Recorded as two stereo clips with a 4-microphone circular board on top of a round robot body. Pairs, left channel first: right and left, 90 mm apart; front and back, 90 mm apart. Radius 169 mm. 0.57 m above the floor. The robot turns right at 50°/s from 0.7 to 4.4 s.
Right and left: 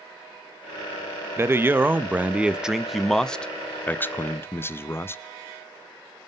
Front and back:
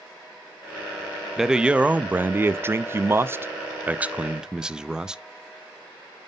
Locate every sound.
1.4 s a man speaking: 100° left, 0.6 m; by 5.2 s 110° right, 0.6 m